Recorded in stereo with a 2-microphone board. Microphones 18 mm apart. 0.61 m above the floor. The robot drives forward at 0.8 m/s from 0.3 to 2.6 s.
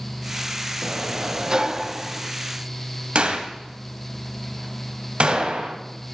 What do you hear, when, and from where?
0.8 s a sliding door: 50° right (ahead or behind), 0.6 m; by 2.3 s 25° right (ahead or behind), 1.1 m
3.1 s a gunshot: 80° right, 1.5 m